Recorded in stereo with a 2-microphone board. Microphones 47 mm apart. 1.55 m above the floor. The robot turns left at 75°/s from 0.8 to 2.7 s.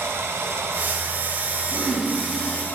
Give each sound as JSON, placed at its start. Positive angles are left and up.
{"t": 0.0, "sound": "running water", "azimuth_deg": -80, "distance_m": 1.2}
{"t": 1.7, "sound": "throat clearing", "azimuth_deg": -130, "distance_m": 4.0}